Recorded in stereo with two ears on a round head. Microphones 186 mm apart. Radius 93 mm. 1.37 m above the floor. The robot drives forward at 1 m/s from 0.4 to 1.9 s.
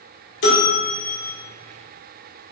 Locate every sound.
0.4 s a bell: 60° left (ahead or behind), 3 m; by 1.3 s 45° left (ahead or behind), 3.5 m